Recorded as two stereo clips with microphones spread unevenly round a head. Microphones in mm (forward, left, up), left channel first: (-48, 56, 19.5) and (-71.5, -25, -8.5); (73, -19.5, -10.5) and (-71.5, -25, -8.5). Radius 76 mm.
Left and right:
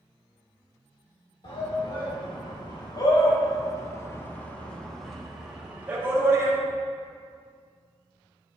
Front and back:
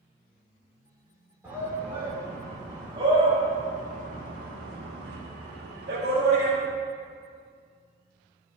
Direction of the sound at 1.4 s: 100° left.